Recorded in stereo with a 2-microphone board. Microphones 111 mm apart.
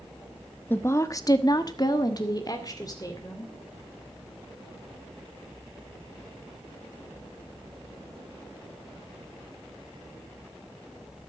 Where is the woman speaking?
20° left (ahead or behind), 1.1 m; by 3.5 s 30° left (ahead or behind), 3 m.